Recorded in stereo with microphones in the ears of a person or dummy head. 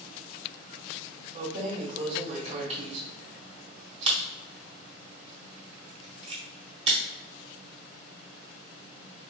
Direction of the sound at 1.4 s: 35° right (ahead or behind).